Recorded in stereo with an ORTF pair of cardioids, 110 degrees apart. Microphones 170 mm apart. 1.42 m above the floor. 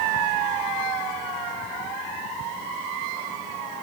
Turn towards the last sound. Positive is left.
No sound to turn to.